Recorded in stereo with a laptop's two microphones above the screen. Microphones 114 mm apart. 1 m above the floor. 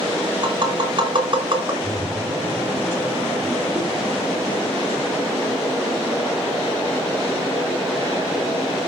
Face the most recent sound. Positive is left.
turn(degrees=-5)  # may be behind; listen again after turning